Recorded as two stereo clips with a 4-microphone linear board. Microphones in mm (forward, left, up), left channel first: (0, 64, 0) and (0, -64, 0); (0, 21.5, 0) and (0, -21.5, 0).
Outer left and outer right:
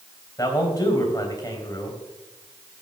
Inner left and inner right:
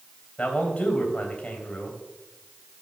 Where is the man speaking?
25° left (ahead or behind), 3.5 m.